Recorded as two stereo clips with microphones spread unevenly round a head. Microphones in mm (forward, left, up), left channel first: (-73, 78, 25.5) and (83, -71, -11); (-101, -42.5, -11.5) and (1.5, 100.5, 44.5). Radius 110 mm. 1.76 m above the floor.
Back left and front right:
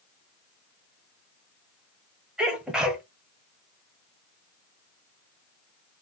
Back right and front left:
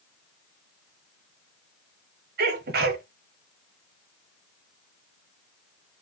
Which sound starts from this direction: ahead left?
A sneeze, at 2.4 s.